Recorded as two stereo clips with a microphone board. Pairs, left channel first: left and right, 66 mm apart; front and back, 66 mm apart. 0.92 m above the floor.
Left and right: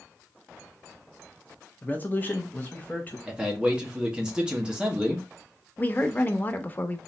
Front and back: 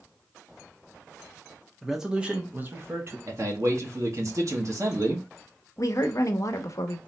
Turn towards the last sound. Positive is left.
turn(degrees=30)